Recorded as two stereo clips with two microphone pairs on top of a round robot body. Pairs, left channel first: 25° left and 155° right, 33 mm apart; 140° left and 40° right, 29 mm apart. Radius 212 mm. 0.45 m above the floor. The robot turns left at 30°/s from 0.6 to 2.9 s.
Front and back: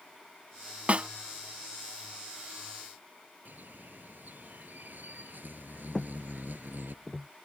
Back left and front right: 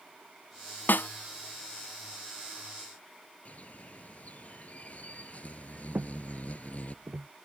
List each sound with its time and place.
0.9 s a snare drum: 155° left; by 1.1 s 145° left
3.5 s a bird: straight behind
6.0 s footsteps: 60° right; by 7.3 s 75° right